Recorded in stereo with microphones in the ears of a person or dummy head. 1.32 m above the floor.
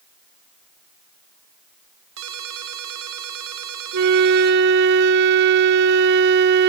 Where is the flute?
60° right (ahead or behind), 0.7 m.